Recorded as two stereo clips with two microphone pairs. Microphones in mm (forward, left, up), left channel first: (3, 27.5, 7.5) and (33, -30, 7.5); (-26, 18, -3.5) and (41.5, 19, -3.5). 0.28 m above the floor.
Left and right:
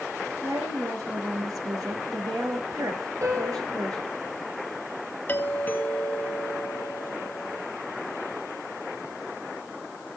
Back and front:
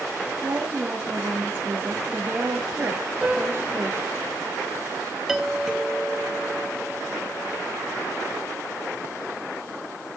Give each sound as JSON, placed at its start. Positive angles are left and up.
{"t": 0.4, "sound": "a woman speaking", "azimuth_deg": -55, "distance_m": 5.5}
{"t": 3.2, "sound": "a piano", "azimuth_deg": -90, "distance_m": 6.0}
{"t": 5.3, "sound": "a doorbell", "azimuth_deg": 85, "distance_m": 2.0}